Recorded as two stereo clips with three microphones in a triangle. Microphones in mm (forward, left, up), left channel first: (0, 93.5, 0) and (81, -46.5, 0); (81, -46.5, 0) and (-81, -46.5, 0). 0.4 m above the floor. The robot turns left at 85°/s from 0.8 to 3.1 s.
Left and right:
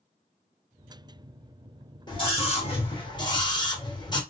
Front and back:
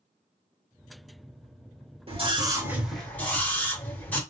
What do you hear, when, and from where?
2.1 s a scream: 165° left, 1.8 m; by 4.2 s 75° left, 1.8 m